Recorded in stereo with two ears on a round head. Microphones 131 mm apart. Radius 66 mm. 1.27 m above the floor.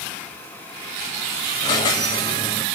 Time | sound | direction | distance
1.6 | a squeak | 25° left (ahead or behind) | 0.9 m